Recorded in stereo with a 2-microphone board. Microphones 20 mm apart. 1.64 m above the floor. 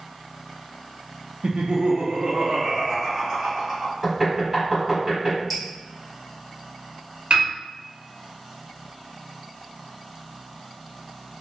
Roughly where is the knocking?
Right.